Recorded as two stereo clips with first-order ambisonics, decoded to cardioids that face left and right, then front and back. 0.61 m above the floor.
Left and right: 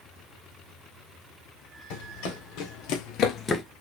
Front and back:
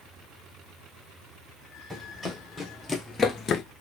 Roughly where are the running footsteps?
Left.